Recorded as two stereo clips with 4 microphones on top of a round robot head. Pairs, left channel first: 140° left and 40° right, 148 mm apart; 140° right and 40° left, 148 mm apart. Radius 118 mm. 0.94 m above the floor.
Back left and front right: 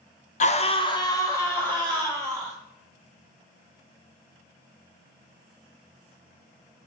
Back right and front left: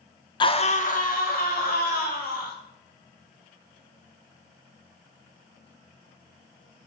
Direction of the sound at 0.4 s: 165° left.